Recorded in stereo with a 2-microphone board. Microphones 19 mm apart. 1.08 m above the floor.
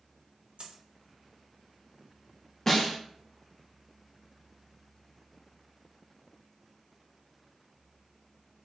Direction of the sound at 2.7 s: 15° left (ahead or behind).